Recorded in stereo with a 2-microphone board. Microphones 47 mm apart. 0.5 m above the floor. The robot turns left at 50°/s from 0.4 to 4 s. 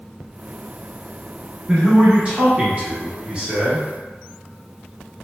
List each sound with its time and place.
1.7 s a man speaking: 15° right (ahead or behind), 0.9 m